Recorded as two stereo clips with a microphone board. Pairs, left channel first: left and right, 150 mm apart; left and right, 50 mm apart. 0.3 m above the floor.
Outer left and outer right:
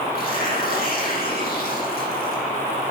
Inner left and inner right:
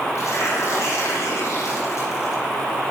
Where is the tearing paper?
70° left (ahead or behind), 8 m.